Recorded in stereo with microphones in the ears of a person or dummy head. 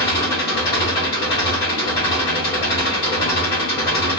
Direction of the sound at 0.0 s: 25° left (ahead or behind).